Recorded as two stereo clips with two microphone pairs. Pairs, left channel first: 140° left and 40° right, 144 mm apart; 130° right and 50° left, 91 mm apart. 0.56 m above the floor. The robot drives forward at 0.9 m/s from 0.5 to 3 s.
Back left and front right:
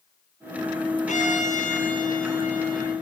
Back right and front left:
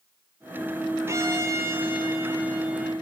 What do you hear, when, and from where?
1.1 s a violin: 105° left, 5 m; by 2.9 s 125° left, 5.5 m